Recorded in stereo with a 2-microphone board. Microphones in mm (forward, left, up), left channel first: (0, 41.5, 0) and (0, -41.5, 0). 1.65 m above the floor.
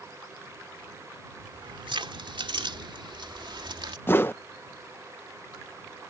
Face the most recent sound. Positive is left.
turn(degrees=25)  # may be behind; listen again after turning